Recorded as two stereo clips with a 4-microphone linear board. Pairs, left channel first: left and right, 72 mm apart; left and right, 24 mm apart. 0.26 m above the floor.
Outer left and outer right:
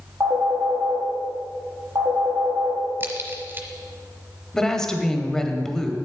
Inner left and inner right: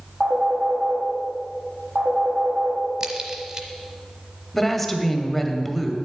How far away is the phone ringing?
About 4 m.